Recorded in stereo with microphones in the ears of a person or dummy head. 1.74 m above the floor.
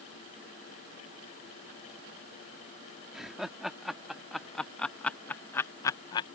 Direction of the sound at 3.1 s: Centre (ahead or behind).